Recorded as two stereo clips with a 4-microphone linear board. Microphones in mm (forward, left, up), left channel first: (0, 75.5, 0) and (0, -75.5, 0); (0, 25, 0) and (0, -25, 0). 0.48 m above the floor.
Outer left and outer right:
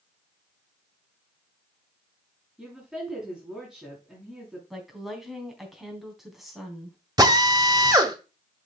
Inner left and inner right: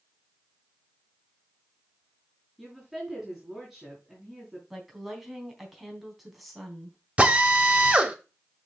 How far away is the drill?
About 1.6 m.